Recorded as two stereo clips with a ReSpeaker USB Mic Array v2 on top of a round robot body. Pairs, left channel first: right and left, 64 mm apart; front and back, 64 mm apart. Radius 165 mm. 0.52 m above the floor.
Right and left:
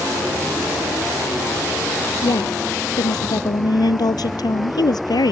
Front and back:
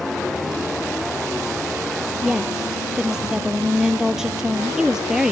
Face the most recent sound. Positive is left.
turn(degrees=-100)